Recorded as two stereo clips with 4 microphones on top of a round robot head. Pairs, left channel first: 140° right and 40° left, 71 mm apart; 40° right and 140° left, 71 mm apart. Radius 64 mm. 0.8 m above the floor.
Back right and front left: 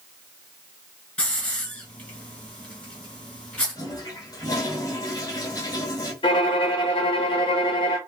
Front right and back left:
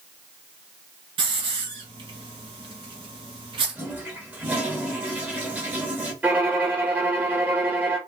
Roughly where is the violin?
Behind right.